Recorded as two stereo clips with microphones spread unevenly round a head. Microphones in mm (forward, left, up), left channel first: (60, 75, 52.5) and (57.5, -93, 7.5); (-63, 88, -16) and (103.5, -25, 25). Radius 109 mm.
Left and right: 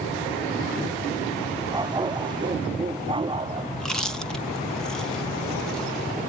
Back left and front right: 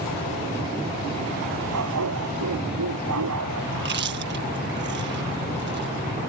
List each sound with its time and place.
1.7 s a dog barking: 25° right; by 3.7 s 30° right
3.8 s chewing: 5° left